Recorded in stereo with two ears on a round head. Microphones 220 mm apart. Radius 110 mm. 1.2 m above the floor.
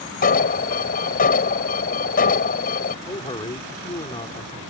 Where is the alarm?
35° left (ahead or behind).